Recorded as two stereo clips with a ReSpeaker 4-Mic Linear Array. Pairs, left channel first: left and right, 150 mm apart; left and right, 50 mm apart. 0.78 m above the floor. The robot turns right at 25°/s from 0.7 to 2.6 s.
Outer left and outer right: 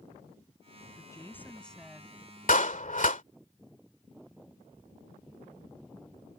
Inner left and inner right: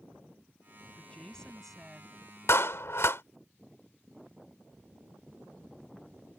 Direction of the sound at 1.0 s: 25° left (ahead or behind).